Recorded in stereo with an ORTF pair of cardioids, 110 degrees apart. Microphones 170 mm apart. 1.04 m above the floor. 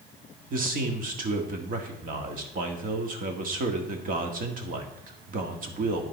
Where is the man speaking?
55° right, 1.8 m.